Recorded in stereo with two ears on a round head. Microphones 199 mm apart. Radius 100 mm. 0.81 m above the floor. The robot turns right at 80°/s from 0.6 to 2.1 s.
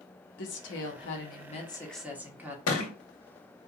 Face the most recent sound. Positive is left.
turn(degrees=75)  # may be behind; listen again after turning